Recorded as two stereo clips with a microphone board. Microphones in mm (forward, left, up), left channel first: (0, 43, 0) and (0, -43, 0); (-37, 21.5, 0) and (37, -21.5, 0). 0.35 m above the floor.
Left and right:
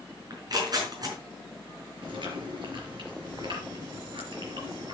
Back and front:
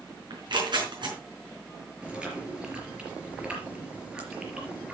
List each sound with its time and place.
0.3 s tearing paper: 55° right, 4.5 m
2.0 s chewing: 110° right, 4.5 m